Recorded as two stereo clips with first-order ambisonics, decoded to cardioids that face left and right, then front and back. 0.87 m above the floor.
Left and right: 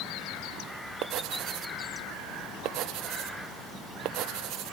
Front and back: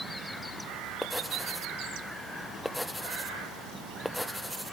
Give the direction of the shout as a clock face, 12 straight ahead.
No shout in this recording.